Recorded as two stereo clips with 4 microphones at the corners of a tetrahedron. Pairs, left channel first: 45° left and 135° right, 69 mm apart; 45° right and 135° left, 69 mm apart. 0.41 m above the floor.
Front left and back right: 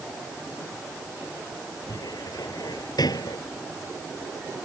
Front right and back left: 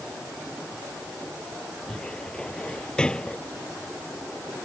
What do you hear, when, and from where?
1.9 s a cupboard door: 30° left